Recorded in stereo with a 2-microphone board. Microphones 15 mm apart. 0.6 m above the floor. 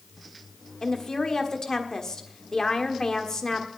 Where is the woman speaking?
35° left (ahead or behind), 1.5 m.